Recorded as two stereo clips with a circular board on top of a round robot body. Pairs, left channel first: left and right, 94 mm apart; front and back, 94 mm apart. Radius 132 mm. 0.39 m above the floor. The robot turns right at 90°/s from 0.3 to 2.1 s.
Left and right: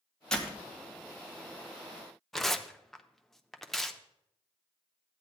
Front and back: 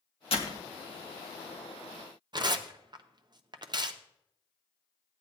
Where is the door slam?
10° left, 1.7 m; by 0.7 s 40° left, 1.7 m.